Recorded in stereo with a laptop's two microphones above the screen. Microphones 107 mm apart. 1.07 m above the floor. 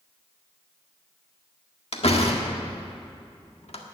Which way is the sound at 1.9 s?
70° left (ahead or behind).